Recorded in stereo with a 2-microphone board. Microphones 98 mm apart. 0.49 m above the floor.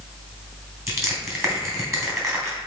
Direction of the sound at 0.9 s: 30° right (ahead or behind).